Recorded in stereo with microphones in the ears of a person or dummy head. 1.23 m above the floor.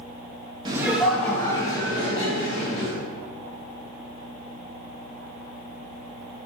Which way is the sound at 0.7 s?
25° right (ahead or behind).